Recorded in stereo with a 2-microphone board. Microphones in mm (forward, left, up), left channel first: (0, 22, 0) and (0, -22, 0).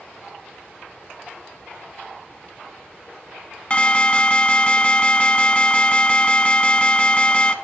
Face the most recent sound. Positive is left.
turn(degrees=25)  # may be behind; listen again after turning